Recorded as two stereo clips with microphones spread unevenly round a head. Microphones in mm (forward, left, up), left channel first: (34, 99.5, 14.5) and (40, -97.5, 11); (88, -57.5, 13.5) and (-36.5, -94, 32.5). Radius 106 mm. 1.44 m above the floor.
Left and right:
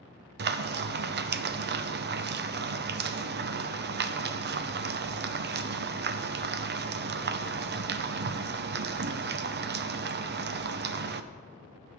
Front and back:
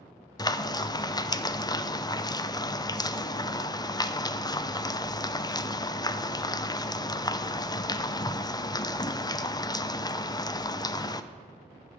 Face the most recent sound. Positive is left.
turn(degrees=-50)